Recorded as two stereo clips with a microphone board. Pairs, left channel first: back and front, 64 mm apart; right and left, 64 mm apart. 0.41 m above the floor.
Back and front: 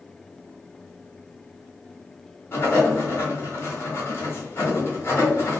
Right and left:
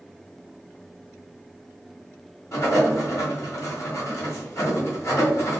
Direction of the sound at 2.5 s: 130° right.